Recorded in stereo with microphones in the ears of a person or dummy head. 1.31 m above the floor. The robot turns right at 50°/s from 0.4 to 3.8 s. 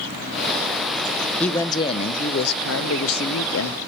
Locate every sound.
1.4 s a man speaking: 5° left, 0.5 m; by 3.8 s 125° left, 0.5 m